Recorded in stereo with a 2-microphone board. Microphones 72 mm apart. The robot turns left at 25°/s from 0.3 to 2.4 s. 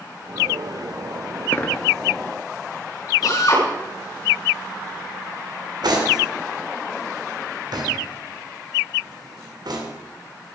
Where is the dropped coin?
30° left (ahead or behind), 1.4 m; by 1.9 s 25° left (ahead or behind), 1.4 m.